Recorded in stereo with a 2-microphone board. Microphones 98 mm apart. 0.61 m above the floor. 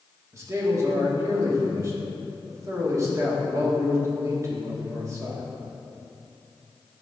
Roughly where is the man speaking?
Right.